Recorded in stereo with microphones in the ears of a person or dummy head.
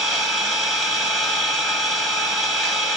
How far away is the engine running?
About 2 m.